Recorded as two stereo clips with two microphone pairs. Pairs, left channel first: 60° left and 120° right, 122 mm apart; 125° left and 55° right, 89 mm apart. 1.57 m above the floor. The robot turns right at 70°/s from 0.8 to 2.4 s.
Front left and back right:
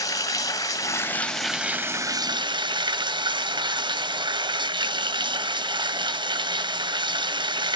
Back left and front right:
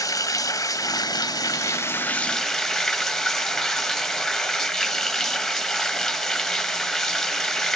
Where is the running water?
100° left, 1.0 m; by 7.8 s 145° right, 1.0 m.